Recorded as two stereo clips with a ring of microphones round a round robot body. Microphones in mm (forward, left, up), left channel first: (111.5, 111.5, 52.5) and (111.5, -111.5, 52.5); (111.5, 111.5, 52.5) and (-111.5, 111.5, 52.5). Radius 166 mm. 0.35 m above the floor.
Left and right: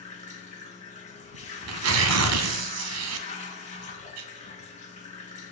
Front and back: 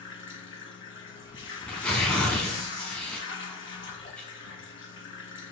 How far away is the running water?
About 3.5 m.